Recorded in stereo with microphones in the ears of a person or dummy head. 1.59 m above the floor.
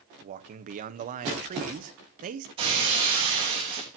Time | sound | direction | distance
0.2 | a man speaking | 40° right (ahead or behind) | 1.0 m
2.6 | breaking glass | 30° right (ahead or behind) | 5 m